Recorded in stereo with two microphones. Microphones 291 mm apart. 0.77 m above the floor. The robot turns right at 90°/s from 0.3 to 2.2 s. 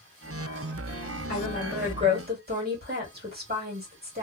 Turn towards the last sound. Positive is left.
turn(degrees=-140)